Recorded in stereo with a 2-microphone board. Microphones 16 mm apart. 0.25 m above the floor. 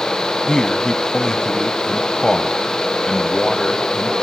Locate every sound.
0.5 s a man speaking: 30° left (ahead or behind), 1.5 m